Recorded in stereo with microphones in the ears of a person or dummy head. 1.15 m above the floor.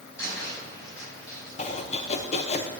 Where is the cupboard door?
20° left (ahead or behind), 6 m.